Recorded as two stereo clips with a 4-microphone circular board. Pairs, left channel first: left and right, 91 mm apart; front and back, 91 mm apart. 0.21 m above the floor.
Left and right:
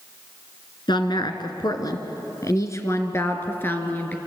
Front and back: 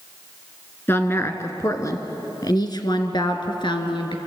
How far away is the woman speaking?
About 2 m.